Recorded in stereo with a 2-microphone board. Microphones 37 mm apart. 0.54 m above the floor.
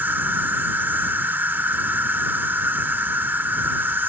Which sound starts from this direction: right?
An insect, at 0.0 s.